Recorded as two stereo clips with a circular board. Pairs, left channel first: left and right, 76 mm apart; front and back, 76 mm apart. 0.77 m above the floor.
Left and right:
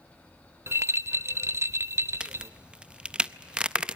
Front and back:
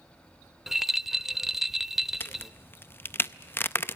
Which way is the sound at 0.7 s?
100° right.